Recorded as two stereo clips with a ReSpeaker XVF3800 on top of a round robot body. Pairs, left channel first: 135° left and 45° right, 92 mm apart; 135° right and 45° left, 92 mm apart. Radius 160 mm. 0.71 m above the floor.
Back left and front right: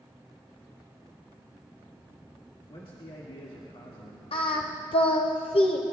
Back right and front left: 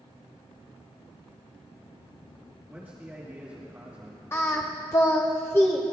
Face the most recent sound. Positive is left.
turn(degrees=160)